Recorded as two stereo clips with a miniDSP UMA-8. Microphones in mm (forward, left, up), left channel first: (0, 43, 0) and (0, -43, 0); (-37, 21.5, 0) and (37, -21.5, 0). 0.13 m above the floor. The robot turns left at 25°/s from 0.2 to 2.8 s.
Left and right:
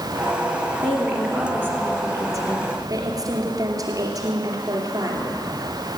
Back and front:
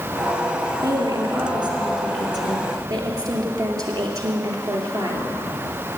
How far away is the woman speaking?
About 2.5 m.